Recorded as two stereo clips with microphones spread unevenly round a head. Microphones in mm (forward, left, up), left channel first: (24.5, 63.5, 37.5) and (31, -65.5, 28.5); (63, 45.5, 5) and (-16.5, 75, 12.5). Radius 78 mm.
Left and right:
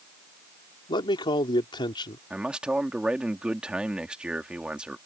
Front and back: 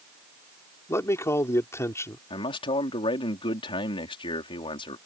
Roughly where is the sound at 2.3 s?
Ahead.